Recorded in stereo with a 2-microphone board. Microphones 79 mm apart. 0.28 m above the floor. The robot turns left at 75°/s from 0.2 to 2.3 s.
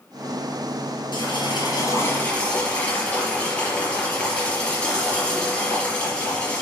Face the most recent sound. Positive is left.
turn(degrees=15)  # may be behind; listen again after turning